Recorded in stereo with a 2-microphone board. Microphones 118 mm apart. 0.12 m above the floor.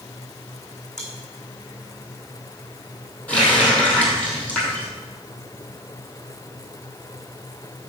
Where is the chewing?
5° left (ahead or behind), 3 m.